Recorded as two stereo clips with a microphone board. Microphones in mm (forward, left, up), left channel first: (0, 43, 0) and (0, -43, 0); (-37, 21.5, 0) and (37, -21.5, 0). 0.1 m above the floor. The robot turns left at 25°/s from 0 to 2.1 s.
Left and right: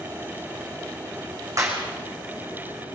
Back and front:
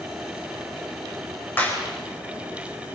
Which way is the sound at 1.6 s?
145° right.